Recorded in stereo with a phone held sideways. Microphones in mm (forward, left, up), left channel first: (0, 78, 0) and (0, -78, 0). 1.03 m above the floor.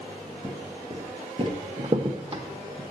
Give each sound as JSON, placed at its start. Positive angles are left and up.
{"t": 0.4, "sound": "footsteps", "side_deg": -20, "distance_m": 1.5}
{"t": 1.8, "sound": "a crack", "side_deg": -35, "distance_m": 0.9}